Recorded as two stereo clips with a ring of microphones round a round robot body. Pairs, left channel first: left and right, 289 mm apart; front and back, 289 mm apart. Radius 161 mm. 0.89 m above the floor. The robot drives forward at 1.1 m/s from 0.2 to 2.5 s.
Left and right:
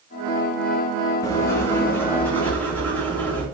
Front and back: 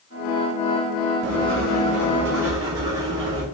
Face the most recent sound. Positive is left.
turn(degrees=175)